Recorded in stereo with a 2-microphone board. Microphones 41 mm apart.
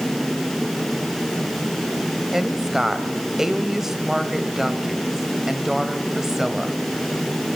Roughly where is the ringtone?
I don't hear a ringtone.